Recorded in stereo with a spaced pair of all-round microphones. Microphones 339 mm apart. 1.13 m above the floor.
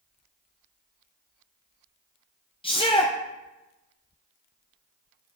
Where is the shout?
15° left (ahead or behind), 0.6 m.